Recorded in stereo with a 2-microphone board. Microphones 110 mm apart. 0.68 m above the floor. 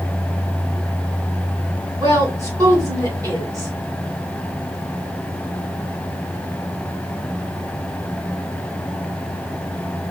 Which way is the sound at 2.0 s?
30° right (ahead or behind).